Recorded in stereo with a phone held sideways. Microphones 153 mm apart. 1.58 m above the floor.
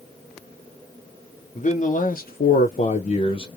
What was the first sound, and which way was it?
A man speaking, 50° left (ahead or behind).